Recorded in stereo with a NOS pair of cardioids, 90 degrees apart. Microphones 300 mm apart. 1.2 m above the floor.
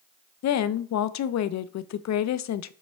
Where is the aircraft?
I don't hear an aircraft.